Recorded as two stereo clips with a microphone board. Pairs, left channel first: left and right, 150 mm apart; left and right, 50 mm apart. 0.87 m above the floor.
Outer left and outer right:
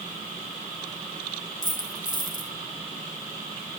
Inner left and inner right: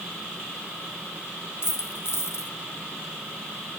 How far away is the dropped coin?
About 2.5 m.